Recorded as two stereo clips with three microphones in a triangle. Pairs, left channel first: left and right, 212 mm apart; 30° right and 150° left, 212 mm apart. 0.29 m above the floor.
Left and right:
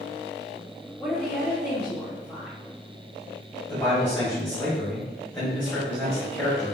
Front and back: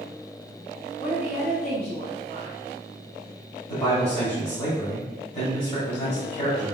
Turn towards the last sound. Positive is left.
turn(degrees=10)